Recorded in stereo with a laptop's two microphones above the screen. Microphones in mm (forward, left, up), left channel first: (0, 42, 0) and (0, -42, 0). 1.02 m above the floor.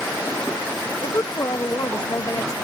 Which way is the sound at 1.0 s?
45° left (ahead or behind).